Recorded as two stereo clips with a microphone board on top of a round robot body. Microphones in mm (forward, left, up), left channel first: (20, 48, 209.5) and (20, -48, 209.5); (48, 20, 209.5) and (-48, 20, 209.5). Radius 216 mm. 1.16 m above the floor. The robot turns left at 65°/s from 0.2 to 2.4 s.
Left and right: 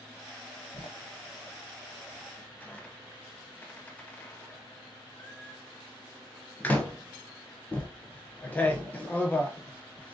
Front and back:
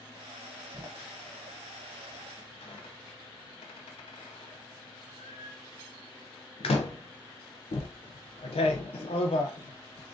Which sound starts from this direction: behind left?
A door slam, at 0.7 s.